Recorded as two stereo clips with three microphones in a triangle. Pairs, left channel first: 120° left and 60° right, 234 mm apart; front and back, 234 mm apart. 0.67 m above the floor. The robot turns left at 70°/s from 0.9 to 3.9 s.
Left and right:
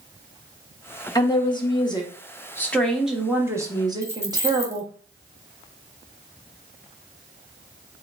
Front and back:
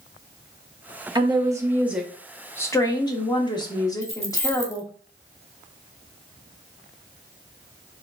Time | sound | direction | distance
1.1 | a woman speaking | 160° left | 0.8 m
4.0 | keys jangling | 15° left | 0.9 m